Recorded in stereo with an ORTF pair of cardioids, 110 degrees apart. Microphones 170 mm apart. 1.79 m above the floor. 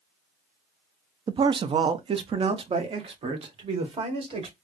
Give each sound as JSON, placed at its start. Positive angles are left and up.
{"t": 1.3, "sound": "a man speaking", "azimuth_deg": -30, "distance_m": 0.5}